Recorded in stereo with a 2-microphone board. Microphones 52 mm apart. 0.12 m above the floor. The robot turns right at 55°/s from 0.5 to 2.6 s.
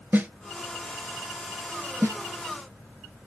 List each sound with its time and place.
0.1 s a snare drum: 35° right (ahead or behind), 1.0 m
2.0 s a snare drum: 65° right (ahead or behind), 0.7 m; by 2.2 s 75° right (ahead or behind), 0.7 m